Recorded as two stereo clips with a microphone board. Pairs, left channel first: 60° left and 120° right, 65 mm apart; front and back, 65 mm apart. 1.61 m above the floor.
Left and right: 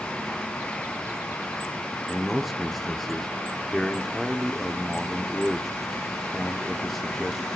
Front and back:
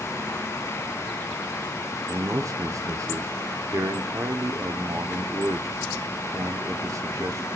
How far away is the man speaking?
About 0.7 m.